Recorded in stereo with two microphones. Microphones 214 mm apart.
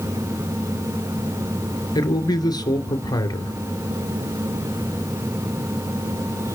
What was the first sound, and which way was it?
A man speaking, 20° left (ahead or behind).